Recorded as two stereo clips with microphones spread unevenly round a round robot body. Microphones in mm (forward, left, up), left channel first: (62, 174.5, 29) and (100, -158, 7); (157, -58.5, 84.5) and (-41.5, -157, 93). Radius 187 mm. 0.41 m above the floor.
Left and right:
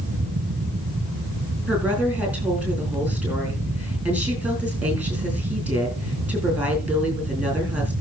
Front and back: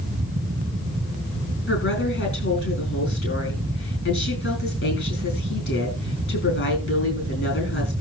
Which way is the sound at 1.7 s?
Straight ahead.